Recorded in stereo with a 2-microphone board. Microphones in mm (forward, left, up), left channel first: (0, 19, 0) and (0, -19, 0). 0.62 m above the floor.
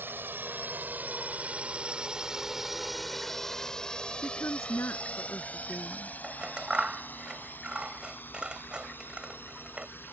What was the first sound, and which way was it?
A drone, 55° right (ahead or behind).